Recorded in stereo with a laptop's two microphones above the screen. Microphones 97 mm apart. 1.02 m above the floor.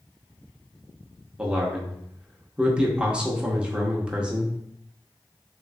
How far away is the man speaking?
About 0.7 m.